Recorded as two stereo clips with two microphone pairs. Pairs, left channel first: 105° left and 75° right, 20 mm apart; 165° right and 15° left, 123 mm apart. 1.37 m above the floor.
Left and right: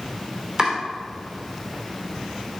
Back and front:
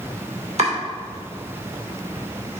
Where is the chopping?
5° right, 2.5 m.